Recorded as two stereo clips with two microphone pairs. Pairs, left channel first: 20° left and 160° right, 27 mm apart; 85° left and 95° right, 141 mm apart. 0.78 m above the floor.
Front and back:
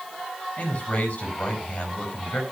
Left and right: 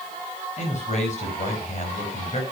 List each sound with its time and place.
0.6 s a man speaking: 50° left, 5 m